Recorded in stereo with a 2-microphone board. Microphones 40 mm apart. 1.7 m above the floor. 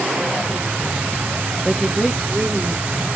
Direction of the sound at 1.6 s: 10° left (ahead or behind).